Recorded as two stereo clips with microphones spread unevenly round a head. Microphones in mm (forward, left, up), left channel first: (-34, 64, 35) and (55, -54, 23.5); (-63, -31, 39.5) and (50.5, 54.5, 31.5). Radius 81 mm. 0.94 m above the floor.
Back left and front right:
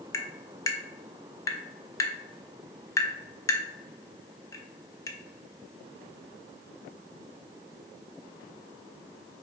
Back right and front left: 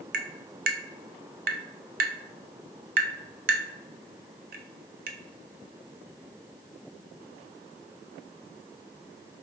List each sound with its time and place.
0.1 s tapping: 60° left, 0.6 m